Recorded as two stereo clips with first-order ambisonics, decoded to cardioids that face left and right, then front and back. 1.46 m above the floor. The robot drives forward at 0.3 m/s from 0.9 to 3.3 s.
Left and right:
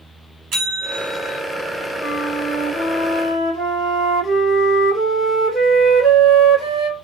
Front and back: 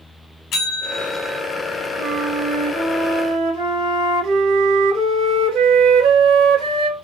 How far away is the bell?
About 1.4 m.